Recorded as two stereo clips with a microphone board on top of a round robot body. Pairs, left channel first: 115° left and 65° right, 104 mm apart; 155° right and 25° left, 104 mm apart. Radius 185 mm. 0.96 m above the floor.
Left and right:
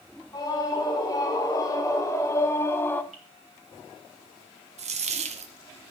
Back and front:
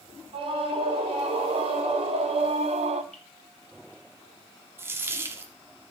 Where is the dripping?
80° right, 3.5 m.